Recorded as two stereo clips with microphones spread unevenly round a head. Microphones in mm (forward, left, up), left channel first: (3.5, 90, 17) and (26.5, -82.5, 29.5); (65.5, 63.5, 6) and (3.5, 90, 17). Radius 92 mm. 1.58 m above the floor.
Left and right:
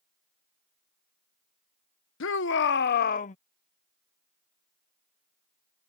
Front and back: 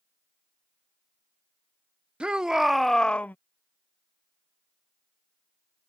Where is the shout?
85° left; by 3.4 s 45° left.